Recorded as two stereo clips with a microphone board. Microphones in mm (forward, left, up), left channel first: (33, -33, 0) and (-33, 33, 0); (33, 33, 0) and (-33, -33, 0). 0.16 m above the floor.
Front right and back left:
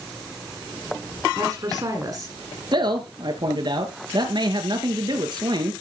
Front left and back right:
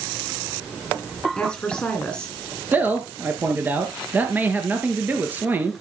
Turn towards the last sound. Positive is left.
turn(degrees=155)